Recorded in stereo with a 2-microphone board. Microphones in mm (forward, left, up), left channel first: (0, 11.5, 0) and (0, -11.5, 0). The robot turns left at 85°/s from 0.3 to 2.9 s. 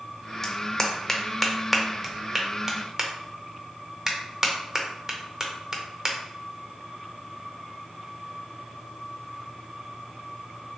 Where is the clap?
20° left (ahead or behind), 0.6 m; by 6.2 s 25° right (ahead or behind), 0.6 m.